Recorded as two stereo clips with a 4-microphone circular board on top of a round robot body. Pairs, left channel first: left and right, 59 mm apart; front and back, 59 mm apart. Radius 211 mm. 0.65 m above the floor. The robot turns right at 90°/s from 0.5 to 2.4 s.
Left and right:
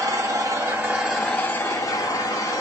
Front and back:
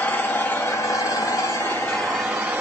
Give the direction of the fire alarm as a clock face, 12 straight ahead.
I don't hear a fire alarm.